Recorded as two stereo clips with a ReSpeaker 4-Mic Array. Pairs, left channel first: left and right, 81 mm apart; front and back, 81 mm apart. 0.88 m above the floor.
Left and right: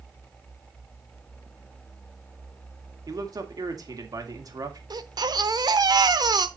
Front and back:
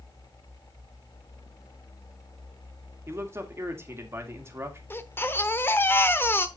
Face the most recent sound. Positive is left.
turn(degrees=-60)